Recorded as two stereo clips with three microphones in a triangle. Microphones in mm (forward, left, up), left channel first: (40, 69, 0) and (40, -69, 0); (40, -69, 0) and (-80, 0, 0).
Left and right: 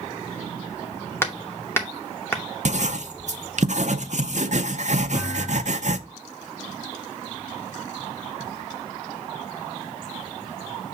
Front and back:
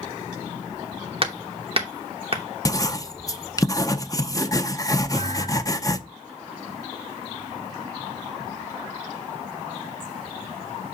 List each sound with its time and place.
1.2 s hammering: 155° left, 0.9 m
2.6 s writing: 90° right, 0.5 m
5.1 s a thud: 105° left, 4.5 m